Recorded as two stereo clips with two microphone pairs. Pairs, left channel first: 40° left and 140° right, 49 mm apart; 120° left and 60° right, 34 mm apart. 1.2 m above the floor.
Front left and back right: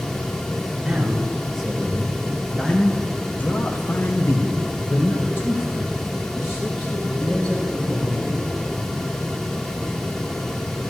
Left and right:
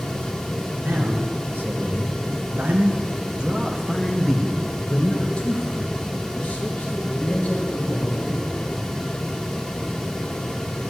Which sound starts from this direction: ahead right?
A man speaking, at 0.8 s.